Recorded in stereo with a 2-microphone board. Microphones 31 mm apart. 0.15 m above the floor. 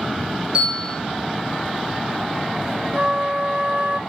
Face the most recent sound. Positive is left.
turn(degrees=-50)  # may be behind; listen again after turning